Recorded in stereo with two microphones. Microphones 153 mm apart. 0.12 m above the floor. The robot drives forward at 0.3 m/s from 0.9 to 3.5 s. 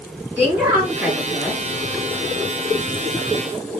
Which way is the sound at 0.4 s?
15° right (ahead or behind).